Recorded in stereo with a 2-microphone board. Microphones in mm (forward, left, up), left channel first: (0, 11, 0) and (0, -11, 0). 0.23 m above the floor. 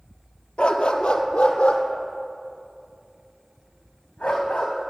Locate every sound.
0.6 s a dog barking: 70° left (ahead or behind), 1.2 m; by 4.7 s 80° left, 4 m